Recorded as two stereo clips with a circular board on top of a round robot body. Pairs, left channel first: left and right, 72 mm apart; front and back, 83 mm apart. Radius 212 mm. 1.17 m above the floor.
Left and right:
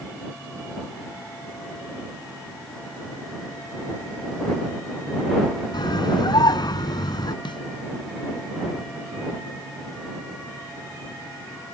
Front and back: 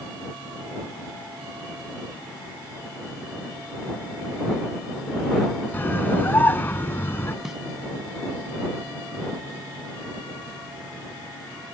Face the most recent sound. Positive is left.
turn(degrees=95)